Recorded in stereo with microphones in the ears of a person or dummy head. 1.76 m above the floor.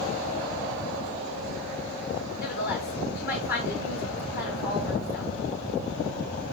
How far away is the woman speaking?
About 1.3 m.